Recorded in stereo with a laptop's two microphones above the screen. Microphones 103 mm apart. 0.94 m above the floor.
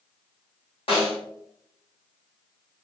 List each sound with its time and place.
0.9 s a snare drum: 70° left (ahead or behind), 1.6 m